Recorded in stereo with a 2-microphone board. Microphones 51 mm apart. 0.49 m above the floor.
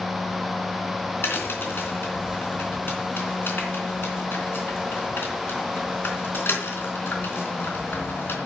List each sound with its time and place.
1.2 s a crack: 45° left (ahead or behind), 3.5 m